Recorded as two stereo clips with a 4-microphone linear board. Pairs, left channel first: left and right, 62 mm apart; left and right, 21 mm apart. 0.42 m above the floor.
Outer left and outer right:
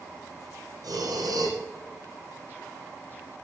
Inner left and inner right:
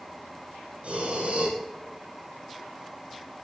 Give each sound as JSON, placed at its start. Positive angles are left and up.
{"t": 0.8, "sound": "breathing", "side_deg": -90, "distance_m": 4.5}